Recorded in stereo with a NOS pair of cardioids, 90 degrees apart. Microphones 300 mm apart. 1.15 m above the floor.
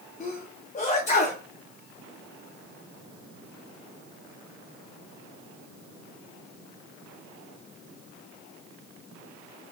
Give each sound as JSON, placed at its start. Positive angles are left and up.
{"t": 0.2, "sound": "a sneeze", "azimuth_deg": 25, "distance_m": 0.8}